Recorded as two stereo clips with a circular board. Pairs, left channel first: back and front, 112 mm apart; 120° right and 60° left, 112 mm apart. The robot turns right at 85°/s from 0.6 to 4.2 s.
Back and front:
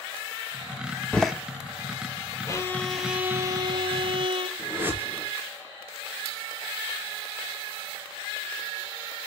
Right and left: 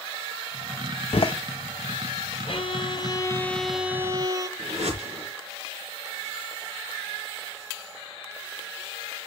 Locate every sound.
1.1 s a door slam: 105° right, 1.0 m; by 1.3 s 85° right, 1.0 m
2.5 s a violin: 135° right, 1.1 m; by 4.5 s 15° left, 1.1 m
4.6 s a whoosh: 70° left, 4 m